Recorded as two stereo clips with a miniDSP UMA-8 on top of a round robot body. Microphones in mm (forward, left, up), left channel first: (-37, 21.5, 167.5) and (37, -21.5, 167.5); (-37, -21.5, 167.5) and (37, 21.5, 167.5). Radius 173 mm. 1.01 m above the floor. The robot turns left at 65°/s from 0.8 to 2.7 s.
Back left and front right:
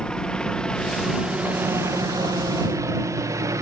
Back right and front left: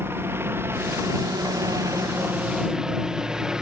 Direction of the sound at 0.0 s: 75° left.